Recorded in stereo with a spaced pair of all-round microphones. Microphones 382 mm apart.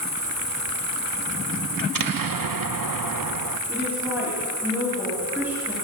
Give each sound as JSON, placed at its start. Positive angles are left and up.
{"t": 0.0, "sound": "an insect", "side_deg": 80, "distance_m": 5.5}
{"t": 1.8, "sound": "an explosion", "side_deg": -60, "distance_m": 0.6}
{"t": 3.7, "sound": "a woman speaking", "side_deg": -5, "distance_m": 4.0}